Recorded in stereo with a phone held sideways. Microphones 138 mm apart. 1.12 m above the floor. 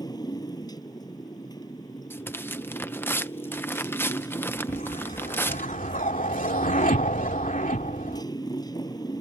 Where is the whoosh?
75° left (ahead or behind).